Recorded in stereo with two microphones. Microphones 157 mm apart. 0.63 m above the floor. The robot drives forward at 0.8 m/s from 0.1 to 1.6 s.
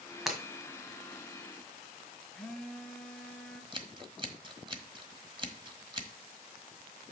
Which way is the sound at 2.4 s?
5° left (ahead or behind).